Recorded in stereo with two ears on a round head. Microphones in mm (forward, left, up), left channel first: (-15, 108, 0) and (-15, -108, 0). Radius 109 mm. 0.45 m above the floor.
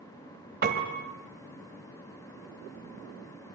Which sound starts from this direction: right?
A piano, at 0.6 s.